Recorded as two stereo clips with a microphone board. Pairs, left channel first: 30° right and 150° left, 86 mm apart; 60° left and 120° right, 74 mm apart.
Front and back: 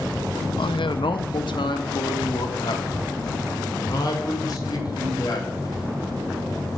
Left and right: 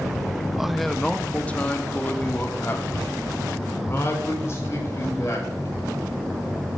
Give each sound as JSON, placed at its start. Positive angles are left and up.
{"t": 0.6, "sound": "a man speaking", "azimuth_deg": -35, "distance_m": 0.7}